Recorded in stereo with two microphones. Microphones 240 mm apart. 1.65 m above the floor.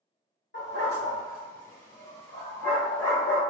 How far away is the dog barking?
About 1.9 m.